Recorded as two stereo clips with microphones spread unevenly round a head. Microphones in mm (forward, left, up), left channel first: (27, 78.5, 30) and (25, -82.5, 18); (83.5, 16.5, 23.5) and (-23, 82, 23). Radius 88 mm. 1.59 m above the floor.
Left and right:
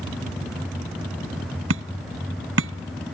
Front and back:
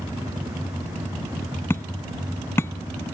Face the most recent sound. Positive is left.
turn(degrees=-110)